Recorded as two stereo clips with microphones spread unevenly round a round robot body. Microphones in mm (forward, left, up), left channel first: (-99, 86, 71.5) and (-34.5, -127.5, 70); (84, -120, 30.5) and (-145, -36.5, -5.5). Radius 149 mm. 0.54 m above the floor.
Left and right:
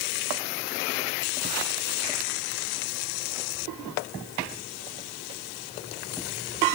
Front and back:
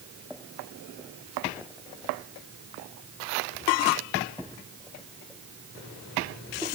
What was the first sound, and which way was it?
Only background noise.